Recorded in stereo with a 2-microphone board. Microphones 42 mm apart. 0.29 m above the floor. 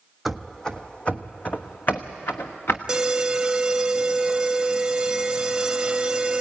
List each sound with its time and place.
0.2 s running footsteps: centre (ahead or behind), 0.8 m; by 2.8 s 60° left (ahead or behind), 1.6 m
2.9 s an alarm: 20° right (ahead or behind), 0.7 m